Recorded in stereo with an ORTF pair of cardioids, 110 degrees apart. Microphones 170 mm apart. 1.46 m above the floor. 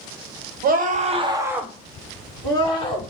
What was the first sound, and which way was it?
A scream, 60° right.